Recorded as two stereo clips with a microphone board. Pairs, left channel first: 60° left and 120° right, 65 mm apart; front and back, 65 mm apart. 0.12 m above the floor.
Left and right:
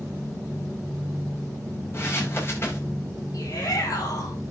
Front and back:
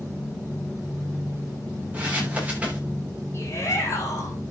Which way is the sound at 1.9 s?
110° left.